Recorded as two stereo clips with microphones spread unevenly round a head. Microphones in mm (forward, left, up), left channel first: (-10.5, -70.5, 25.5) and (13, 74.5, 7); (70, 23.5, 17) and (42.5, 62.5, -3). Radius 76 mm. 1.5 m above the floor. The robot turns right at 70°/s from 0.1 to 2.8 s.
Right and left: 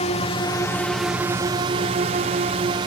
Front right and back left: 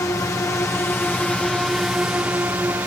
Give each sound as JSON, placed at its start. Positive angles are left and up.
{"t": 0.0, "sound": "a drone", "azimuth_deg": -65}